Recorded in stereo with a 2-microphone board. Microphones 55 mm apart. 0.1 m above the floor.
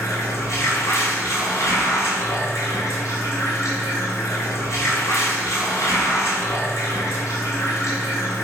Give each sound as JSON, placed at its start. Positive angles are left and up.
{"t": 0.0, "sound": "running water", "side_deg": 65, "distance_m": 1.4}